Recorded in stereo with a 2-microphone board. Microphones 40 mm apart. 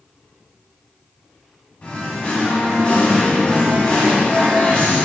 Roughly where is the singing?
Left.